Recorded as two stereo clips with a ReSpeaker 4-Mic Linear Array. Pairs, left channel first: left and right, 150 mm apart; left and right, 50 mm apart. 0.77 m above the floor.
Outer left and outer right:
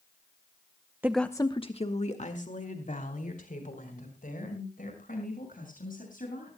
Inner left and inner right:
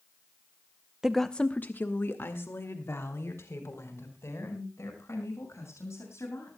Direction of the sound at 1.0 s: 15° right (ahead or behind).